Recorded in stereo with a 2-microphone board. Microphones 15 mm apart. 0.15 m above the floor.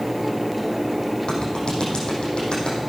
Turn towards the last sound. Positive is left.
turn(degrees=70)  # may be behind; listen again after turning